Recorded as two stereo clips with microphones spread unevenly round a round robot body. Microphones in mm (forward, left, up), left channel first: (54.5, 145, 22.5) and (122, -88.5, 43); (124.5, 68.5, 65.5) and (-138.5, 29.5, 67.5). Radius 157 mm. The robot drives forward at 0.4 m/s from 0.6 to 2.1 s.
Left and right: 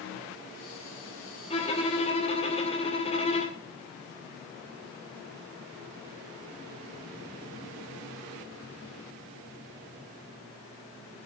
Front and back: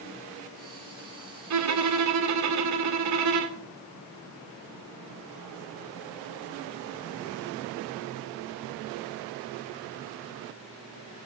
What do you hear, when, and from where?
1.5 s a violin: 175° left, 2 m